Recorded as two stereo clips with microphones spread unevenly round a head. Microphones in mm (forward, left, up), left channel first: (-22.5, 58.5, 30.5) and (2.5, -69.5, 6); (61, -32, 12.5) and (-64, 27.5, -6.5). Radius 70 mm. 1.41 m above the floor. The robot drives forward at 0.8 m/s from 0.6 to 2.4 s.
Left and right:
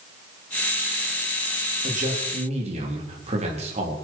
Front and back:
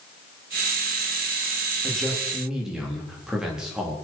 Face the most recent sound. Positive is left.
turn(degrees=-120)